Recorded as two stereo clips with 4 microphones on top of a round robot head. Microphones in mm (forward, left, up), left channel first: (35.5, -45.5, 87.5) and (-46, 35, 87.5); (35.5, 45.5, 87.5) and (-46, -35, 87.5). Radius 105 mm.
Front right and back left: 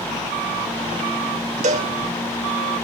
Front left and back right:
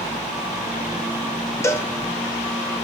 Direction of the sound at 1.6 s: 110° left.